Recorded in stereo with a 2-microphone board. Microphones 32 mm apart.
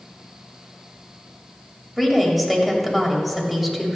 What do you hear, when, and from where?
2.0 s a woman speaking: centre (ahead or behind), 1.5 m